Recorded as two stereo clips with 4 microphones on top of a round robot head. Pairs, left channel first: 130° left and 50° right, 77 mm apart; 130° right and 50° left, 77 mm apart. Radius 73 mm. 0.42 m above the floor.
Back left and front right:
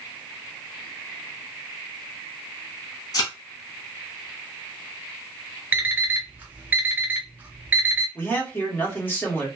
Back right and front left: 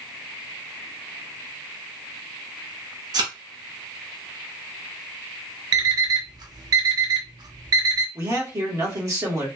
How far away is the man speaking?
About 1.6 m.